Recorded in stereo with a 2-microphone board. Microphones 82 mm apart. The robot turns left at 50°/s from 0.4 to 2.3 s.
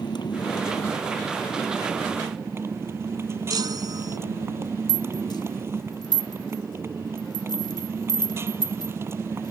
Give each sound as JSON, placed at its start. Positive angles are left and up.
{"t": 0.0, "sound": "a motorcycle", "azimuth_deg": 65}
{"t": 3.5, "sound": "a chime", "side_deg": -60}
{"t": 4.9, "sound": "a rattle", "side_deg": 65}